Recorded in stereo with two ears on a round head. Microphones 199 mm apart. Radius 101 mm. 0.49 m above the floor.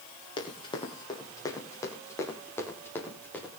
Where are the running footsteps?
20° left (ahead or behind), 6 m; by 3.6 s 5° left (ahead or behind), 7 m.